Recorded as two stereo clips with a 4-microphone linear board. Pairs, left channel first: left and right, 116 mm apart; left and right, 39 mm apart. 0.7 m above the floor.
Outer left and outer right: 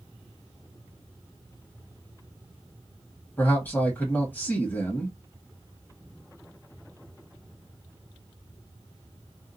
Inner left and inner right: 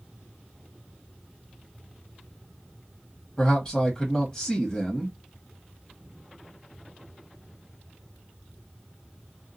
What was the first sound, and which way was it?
A man speaking, 15° left (ahead or behind).